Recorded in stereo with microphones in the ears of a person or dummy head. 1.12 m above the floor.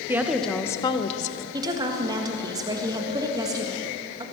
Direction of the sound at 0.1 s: 15° right (ahead or behind).